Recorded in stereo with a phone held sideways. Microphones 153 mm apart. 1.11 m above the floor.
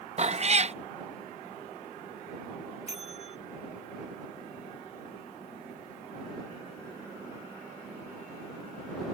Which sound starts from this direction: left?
A bell, at 2.9 s.